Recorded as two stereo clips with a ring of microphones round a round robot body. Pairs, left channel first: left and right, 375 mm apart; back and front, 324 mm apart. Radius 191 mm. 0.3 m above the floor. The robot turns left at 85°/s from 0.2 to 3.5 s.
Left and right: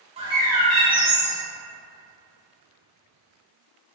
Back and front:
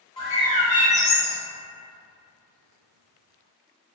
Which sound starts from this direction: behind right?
A bird, at 0.2 s.